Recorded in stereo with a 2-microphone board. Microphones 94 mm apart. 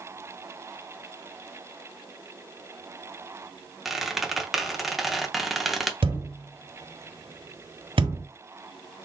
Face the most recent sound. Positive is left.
turn(degrees=-75)  # may be behind; listen again after turning